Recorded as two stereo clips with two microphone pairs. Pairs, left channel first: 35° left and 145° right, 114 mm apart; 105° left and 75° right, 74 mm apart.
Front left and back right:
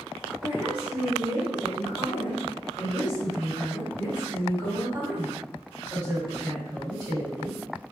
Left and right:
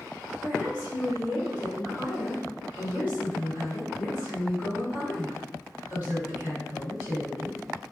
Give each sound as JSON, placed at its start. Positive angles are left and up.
{"t": 0.4, "sound": "a woman speaking", "azimuth_deg": -140, "distance_m": 2.0}